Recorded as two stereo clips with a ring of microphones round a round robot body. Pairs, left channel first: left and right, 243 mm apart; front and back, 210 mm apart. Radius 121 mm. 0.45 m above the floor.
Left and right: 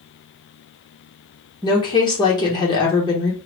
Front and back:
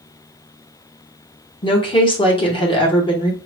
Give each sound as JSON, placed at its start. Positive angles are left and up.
{"t": 1.6, "sound": "a woman speaking", "azimuth_deg": 35, "distance_m": 0.9}